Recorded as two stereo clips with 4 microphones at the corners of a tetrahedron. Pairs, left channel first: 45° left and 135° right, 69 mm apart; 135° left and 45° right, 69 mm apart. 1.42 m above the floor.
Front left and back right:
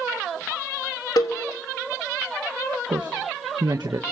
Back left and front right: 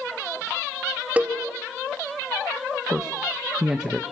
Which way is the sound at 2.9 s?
125° right.